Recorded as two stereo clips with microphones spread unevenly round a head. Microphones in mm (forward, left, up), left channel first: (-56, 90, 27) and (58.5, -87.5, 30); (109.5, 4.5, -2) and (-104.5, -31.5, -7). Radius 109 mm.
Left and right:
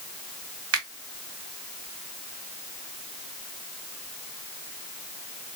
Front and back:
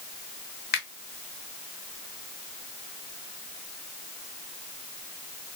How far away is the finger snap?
About 2 m.